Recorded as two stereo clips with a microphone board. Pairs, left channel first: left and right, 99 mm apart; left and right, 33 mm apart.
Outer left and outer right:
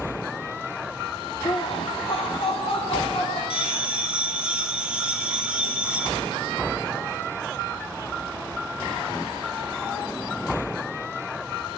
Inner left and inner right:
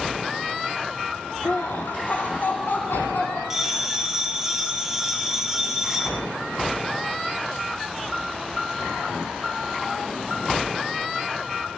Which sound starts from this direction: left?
Laughter, at 1.4 s.